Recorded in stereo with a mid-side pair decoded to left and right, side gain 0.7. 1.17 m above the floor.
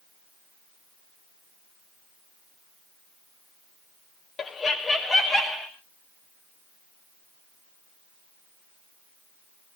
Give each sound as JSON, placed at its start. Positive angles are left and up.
{"t": 4.4, "sound": "laughter", "azimuth_deg": 30, "distance_m": 0.7}